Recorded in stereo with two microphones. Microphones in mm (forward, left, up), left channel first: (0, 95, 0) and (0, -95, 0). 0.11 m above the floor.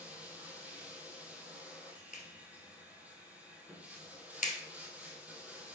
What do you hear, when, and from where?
0.0 s running water: 10° right (ahead or behind), 1.7 m
2.1 s a clap: 45° left (ahead or behind), 1.7 m